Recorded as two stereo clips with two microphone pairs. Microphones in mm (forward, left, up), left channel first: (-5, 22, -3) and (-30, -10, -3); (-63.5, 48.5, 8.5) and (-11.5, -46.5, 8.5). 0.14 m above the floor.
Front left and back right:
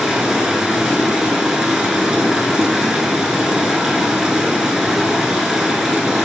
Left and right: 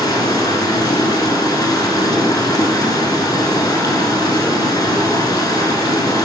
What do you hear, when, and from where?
0.0 s running water: 160° left, 0.7 m